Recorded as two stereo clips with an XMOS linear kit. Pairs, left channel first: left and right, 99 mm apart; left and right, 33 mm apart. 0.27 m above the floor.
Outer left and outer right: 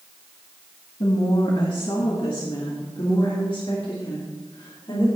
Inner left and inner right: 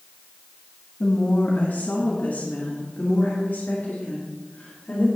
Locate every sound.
1.0 s a woman speaking: 60° left (ahead or behind), 1.9 m; by 5.1 s 65° left (ahead or behind), 4.5 m